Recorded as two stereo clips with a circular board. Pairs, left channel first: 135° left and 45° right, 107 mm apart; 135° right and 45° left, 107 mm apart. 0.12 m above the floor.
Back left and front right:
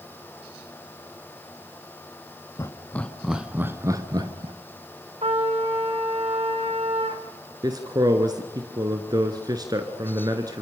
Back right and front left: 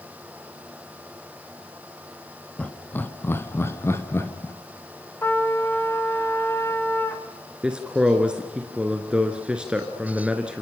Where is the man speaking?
30° right, 1.7 m.